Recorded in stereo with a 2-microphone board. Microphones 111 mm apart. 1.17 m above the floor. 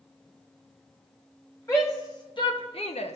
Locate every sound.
1.7 s a shout: 25° left (ahead or behind), 1.4 m; by 3.2 s 70° left (ahead or behind), 0.8 m